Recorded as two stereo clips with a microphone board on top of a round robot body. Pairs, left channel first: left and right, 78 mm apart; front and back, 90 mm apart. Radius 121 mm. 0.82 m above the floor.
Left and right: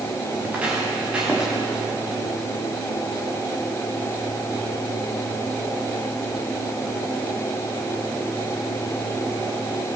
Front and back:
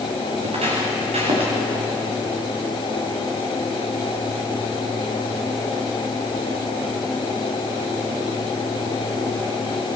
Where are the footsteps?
165° right, 6.5 m; by 1.5 s 170° right, 7 m.